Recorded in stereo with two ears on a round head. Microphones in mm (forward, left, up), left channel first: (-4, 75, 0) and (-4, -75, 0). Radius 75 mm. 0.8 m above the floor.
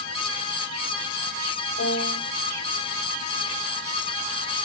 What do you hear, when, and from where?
1.8 s a piano: 45° left (ahead or behind), 4.5 m